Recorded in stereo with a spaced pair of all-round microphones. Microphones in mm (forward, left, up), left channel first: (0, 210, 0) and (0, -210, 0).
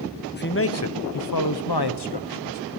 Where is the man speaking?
25° left (ahead or behind), 0.9 m; by 2.6 s 75° left (ahead or behind), 1.5 m.